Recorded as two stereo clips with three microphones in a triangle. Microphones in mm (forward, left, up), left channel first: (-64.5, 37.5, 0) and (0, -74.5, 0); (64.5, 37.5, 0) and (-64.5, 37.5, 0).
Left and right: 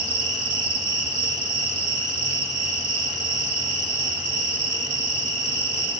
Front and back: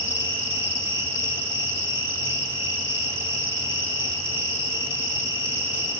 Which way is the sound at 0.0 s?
110° right.